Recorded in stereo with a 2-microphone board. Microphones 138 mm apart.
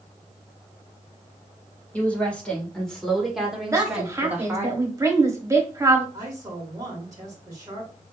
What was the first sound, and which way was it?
A woman speaking, 10° left (ahead or behind).